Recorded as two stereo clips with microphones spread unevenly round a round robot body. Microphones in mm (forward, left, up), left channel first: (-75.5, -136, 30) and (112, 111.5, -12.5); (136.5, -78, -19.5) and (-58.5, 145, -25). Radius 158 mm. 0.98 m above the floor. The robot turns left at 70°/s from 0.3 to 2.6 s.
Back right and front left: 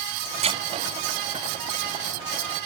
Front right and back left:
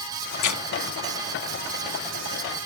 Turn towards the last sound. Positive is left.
turn(degrees=-170)